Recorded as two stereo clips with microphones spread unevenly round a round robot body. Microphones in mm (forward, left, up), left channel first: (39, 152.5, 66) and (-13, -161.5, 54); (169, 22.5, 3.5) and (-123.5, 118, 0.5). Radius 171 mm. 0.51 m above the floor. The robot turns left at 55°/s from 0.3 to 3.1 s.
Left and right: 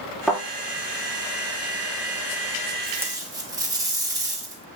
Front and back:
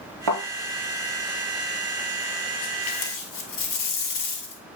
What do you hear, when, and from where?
0.3 s a thud: 170° left, 4 m; by 0.4 s 165° left, 4 m
2.8 s tape being pulled: 10° right, 1.7 m; by 4.6 s 25° right, 1.7 m